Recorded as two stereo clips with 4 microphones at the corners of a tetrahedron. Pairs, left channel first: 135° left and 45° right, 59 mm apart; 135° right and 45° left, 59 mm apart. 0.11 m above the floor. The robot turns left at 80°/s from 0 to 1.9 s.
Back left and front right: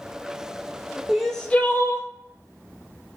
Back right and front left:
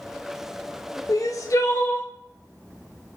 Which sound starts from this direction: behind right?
Crying, at 1.1 s.